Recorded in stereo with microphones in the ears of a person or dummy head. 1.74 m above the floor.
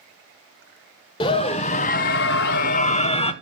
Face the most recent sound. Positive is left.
turn(degrees=30)  # may be behind; listen again after turning